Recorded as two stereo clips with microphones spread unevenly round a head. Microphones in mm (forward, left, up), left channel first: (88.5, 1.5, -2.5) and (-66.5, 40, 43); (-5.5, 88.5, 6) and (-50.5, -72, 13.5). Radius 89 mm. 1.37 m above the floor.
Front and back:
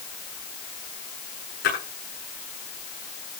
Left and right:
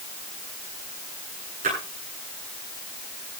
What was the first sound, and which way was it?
A splash, 50° right.